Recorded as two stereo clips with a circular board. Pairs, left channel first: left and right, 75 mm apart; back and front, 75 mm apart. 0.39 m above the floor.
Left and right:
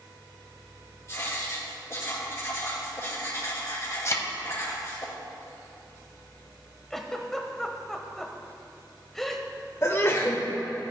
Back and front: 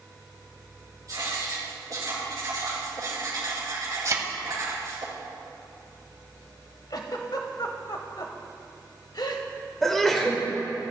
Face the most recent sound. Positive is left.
turn(degrees=95)